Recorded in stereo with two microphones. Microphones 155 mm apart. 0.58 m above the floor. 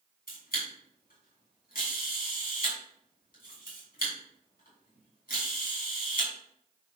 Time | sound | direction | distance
0.3 | a camera shutter | 70° left (ahead or behind) | 3.5 m